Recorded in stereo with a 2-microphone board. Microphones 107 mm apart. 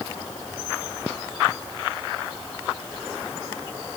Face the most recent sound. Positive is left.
No sound to turn to.